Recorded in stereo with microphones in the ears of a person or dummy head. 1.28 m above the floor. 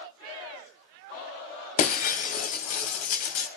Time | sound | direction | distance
1.8 | breaking glass | 45° left (ahead or behind) | 2.5 m